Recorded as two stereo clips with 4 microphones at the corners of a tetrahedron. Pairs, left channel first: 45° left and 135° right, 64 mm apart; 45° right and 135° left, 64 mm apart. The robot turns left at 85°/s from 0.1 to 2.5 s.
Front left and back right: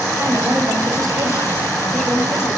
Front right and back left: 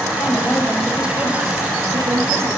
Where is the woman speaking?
75° right, 4 m; by 2.5 s 85° left, 4 m.